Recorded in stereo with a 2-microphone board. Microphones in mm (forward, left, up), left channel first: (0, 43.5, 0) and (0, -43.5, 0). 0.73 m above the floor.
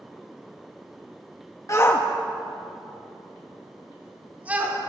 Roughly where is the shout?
Left.